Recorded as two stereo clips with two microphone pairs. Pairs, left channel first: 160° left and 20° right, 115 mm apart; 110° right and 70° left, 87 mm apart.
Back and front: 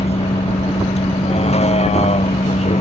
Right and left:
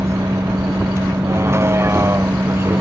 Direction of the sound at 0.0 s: 130° left.